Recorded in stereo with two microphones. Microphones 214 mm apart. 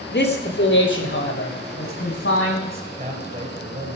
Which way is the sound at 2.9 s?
30° right (ahead or behind).